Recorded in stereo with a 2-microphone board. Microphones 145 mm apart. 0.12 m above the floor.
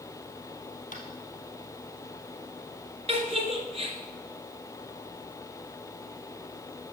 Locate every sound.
0.9 s tapping: 65° left (ahead or behind), 2 m
3.1 s a giggle: 40° right (ahead or behind), 1.8 m